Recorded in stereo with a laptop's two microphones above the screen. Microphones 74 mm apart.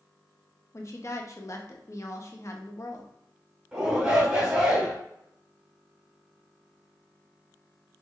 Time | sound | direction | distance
0.7 | a woman speaking | 45° left (ahead or behind) | 0.8 m
3.7 | a shout | 20° right (ahead or behind) | 1.7 m